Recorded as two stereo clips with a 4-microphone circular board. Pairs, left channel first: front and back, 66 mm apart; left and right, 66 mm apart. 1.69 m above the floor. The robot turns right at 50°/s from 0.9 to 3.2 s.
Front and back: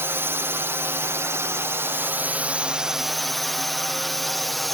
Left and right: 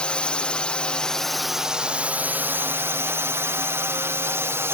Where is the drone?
155° left; by 4.7 s 90° right.